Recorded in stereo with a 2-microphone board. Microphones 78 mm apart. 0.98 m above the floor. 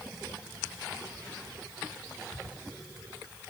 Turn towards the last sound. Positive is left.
No sound to turn to.